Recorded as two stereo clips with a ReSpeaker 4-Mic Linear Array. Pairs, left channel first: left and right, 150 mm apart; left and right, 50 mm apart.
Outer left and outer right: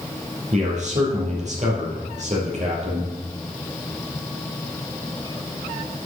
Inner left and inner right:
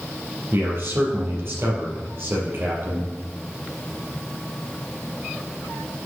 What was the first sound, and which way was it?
A man speaking, 50° right (ahead or behind).